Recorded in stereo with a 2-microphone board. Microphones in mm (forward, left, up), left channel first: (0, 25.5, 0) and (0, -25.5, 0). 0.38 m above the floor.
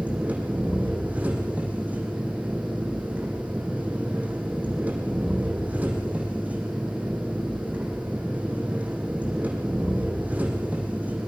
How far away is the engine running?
About 6 m.